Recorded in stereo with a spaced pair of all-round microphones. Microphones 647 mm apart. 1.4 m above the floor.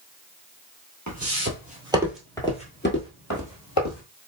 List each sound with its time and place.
1.1 s footsteps: 25° right (ahead or behind), 1.5 m; by 4.0 s 35° left (ahead or behind), 1.7 m